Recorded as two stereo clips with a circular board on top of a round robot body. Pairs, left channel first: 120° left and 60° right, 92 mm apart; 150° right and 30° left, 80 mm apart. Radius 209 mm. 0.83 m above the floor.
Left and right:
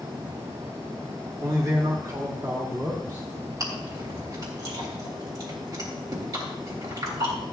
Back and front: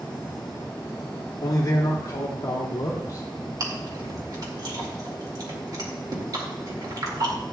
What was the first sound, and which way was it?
A man speaking, 105° right.